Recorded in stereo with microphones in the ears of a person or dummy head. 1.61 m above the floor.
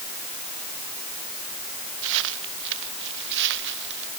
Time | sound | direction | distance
2.0 | footsteps | 75° right (ahead or behind) | ?